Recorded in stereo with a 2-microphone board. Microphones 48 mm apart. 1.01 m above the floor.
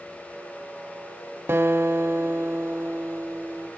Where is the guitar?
50° right (ahead or behind), 0.8 m.